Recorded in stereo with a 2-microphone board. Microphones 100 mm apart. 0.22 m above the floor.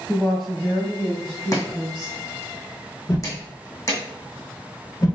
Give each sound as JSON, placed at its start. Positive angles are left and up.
{"t": 0.1, "sound": "a woman speaking", "side_deg": 0, "distance_m": 1.0}
{"t": 1.5, "sound": "chopping", "side_deg": 35, "distance_m": 1.9}
{"t": 3.1, "sound": "a whoosh", "side_deg": 35, "distance_m": 1.3}